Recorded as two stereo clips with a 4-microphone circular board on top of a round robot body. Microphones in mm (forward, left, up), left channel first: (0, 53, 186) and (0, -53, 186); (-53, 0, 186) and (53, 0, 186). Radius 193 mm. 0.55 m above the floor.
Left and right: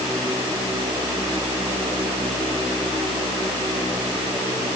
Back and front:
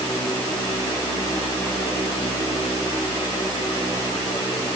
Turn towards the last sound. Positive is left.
No sound to turn to.